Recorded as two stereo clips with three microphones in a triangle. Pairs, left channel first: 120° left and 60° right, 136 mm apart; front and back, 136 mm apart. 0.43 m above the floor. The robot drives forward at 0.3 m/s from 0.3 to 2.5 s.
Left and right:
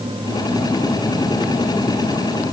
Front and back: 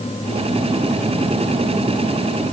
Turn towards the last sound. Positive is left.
No sound to turn to.